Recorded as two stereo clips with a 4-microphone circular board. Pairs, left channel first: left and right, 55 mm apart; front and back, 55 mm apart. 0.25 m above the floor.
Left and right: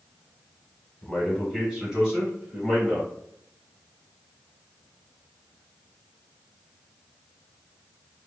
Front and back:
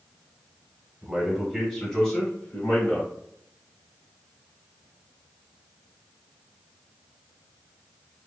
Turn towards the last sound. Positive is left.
turn(degrees=-30)